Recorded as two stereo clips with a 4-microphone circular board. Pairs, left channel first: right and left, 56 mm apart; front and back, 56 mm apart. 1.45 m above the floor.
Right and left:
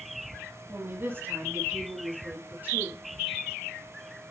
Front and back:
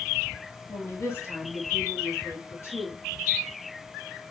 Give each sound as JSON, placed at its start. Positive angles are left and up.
{"t": 0.7, "sound": "a woman speaking", "azimuth_deg": 40, "distance_m": 3.0}